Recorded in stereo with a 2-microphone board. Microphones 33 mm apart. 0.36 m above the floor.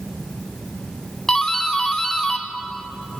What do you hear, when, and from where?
1.3 s a doorbell: 15° left (ahead or behind), 1.8 m